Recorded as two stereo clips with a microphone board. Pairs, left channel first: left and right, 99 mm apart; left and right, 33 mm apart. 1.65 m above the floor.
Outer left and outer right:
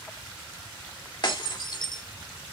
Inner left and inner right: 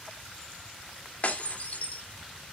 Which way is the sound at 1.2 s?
50° left (ahead or behind).